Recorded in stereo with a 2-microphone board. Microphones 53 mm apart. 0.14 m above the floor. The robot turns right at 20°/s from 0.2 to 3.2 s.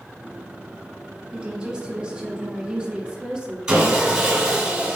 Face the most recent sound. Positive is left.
turn(degrees=-15)  # may be behind; listen again after turning